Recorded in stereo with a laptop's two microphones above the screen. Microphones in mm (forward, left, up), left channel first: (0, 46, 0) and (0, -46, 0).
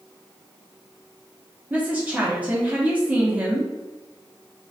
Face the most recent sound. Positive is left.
turn(degrees=-15)  # may be behind; listen again after turning